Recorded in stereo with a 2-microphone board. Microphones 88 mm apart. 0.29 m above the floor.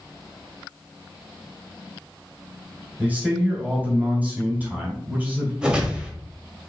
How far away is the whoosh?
About 1.1 m.